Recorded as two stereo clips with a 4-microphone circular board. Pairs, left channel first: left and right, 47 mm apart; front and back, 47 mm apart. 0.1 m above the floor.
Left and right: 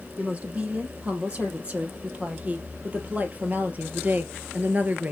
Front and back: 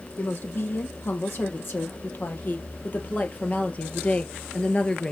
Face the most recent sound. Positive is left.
turn(degrees=-60)